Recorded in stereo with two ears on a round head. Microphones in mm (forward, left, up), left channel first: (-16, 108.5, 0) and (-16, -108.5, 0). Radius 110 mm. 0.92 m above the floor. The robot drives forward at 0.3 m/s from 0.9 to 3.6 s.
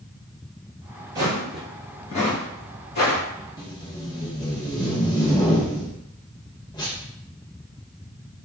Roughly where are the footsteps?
Centre.